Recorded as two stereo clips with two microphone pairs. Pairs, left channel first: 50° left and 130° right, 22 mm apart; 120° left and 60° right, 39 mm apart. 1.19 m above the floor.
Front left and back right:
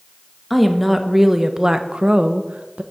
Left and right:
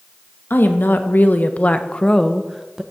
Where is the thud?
I don't hear a thud.